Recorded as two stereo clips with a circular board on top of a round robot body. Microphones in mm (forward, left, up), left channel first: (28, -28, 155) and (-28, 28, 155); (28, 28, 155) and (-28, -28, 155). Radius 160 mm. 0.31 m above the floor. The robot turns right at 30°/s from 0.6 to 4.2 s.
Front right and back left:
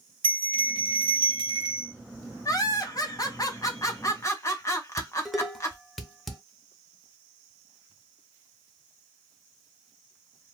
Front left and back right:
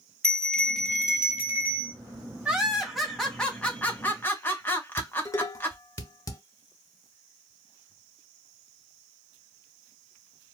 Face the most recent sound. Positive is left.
turn(degrees=45)